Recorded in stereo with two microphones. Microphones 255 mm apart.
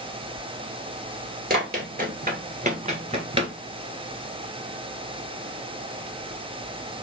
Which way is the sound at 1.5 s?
35° right (ahead or behind).